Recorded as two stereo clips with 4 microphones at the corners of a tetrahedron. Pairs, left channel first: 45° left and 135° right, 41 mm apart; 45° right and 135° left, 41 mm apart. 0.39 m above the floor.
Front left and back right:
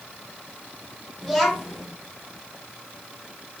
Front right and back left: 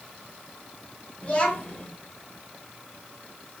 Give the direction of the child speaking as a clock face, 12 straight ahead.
1 o'clock.